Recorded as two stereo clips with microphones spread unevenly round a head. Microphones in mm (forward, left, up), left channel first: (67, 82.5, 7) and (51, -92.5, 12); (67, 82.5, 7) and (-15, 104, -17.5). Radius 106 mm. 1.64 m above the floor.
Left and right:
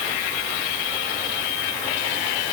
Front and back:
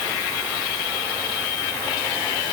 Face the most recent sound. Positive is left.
No sound to turn to.